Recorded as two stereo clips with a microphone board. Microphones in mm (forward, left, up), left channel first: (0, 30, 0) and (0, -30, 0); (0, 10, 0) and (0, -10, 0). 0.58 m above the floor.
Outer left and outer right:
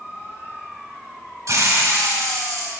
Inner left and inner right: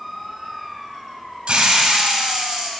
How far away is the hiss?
About 1.5 m.